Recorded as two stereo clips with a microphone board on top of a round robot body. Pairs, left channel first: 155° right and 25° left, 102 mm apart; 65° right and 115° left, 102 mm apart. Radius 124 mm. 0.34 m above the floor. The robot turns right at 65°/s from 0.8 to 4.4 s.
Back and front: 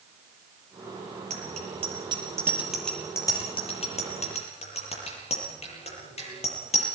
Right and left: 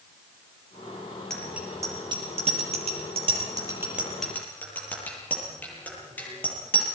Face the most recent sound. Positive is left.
turn(degrees=-140)